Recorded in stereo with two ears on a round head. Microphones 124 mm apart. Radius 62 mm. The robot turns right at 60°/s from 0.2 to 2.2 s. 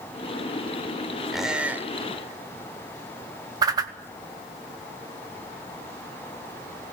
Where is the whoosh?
25° right (ahead or behind), 1.0 m.